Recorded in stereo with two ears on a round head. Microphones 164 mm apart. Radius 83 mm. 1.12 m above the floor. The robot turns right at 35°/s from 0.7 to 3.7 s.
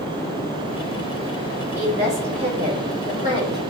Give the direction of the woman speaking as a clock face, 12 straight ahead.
12 o'clock.